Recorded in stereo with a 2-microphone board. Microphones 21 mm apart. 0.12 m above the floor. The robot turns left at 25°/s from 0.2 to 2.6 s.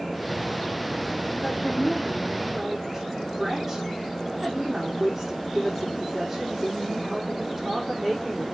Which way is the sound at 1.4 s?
15° left (ahead or behind).